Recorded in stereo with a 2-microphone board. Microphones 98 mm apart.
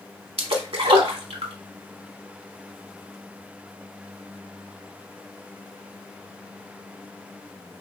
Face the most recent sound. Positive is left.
turn(degrees=-80)